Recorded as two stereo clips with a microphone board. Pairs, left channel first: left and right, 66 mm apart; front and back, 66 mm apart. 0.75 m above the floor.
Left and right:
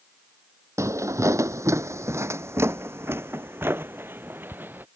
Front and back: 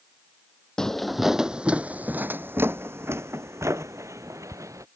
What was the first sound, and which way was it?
Footsteps, 75° right.